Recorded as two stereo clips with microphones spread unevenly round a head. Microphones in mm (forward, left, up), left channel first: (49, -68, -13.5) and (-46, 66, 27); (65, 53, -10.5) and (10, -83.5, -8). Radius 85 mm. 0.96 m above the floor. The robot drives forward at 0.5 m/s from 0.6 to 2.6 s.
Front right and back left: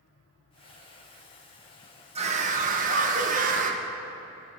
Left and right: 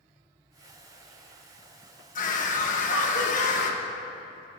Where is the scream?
70° left, 1.1 m; by 3.8 s 80° left, 1.1 m.